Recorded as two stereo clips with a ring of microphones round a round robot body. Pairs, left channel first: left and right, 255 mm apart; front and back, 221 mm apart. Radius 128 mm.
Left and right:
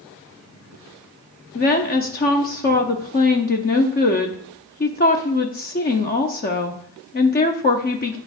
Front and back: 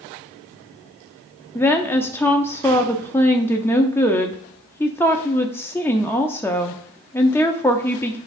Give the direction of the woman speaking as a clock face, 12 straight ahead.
10 o'clock.